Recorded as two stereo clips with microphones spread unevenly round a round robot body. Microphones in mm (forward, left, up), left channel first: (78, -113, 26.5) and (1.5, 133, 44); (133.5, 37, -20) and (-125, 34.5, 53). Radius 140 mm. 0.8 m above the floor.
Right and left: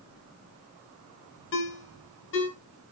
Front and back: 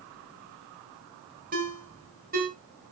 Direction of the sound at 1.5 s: 120° right.